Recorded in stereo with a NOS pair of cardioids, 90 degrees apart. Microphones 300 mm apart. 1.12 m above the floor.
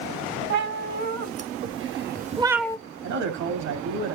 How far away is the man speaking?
About 2.5 m.